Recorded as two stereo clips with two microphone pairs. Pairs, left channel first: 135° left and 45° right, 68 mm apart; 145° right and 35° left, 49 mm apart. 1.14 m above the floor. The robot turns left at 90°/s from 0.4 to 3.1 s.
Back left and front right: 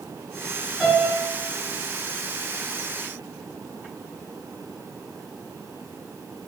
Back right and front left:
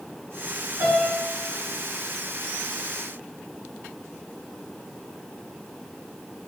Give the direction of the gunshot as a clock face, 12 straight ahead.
I don't hear a gunshot.